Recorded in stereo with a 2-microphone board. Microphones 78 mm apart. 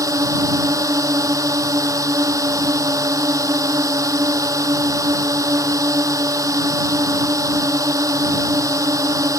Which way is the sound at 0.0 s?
45° right (ahead or behind).